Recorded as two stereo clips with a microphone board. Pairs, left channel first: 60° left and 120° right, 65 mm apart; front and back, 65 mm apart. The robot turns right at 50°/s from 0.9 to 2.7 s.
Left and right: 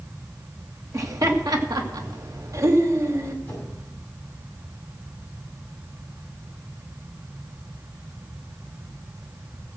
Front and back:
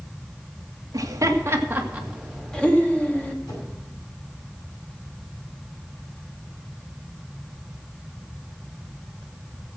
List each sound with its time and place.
0.9 s laughter: 160° right, 2.0 m; by 3.4 s 70° right, 2.0 m
3.5 s a whoosh: 5° right, 6.5 m